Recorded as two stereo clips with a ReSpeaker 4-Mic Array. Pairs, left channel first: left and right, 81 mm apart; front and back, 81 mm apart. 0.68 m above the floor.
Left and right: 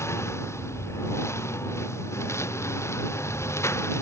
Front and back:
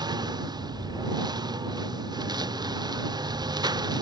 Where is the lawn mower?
145° left.